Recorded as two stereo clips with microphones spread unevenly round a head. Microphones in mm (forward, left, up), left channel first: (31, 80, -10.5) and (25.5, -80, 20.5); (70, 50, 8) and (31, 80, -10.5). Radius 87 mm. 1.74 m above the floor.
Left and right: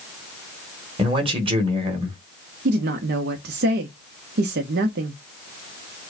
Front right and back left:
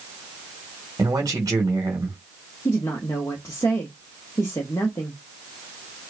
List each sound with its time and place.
1.0 s a man speaking: 150° right, 1.6 m
2.6 s a woman speaking: 90° right, 0.8 m